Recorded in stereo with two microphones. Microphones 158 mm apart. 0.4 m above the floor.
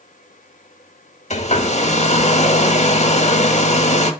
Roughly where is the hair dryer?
Left.